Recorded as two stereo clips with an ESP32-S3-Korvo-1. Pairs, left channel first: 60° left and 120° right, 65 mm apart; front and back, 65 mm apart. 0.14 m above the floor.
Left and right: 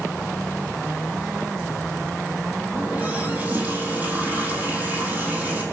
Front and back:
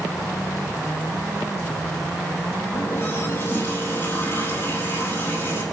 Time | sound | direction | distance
2.7 | a running tap | 55° right | 3.5 m